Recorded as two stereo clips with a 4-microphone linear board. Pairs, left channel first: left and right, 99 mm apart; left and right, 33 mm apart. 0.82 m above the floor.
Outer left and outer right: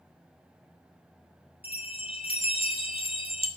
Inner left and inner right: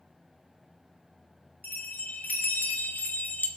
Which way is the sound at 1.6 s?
70° left (ahead or behind).